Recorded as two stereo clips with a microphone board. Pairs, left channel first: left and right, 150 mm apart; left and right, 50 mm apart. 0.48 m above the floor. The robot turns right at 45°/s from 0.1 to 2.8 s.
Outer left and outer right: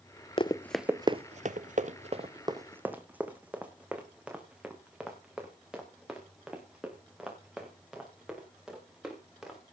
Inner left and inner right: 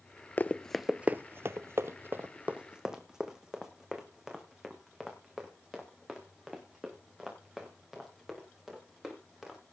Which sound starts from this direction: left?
Running footsteps, at 0.4 s.